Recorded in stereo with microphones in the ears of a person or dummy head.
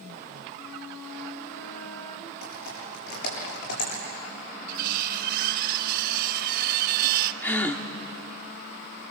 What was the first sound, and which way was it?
A flute, 20° left (ahead or behind).